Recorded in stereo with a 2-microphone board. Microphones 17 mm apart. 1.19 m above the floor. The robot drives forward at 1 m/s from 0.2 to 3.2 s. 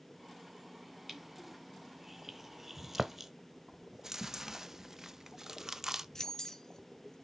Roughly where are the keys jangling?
Left.